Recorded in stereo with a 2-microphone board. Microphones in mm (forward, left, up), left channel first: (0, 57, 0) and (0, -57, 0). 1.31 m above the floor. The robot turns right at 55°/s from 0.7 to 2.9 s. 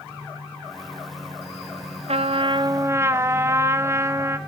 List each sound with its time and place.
2.1 s a trumpet: 70° right, 0.8 m; by 4.4 s 25° right, 0.8 m